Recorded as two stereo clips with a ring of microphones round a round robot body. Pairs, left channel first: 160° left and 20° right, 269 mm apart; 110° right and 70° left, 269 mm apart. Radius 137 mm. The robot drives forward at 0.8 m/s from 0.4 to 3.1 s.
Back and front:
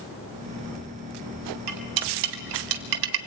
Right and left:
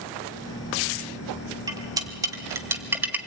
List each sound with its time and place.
1.7 s cutlery clinking: 10° right, 2.5 m; by 3.2 s 15° right, 1.5 m